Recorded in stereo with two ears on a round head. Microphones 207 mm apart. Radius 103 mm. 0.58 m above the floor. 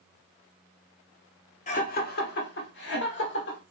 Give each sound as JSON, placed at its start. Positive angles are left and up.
{"t": 1.7, "sound": "laughter", "side_deg": 35, "distance_m": 0.8}